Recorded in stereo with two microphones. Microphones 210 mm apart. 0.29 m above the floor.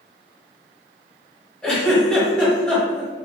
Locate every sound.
1.6 s a giggle: 5° left (ahead or behind), 1.3 m